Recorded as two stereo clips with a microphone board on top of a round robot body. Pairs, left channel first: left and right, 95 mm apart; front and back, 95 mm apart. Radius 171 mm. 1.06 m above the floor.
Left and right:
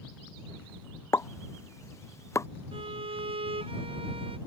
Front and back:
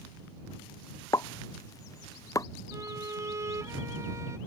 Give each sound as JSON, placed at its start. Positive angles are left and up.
{"t": 1.1, "sound": "a pop", "azimuth_deg": 40}
{"t": 2.7, "sound": "a violin", "azimuth_deg": -120}